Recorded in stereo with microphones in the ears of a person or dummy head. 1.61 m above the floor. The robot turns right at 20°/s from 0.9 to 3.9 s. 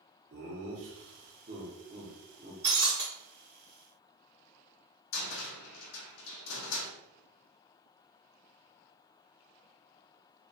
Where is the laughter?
50° right (ahead or behind), 0.8 m; by 2.5 s 20° right (ahead or behind), 0.8 m.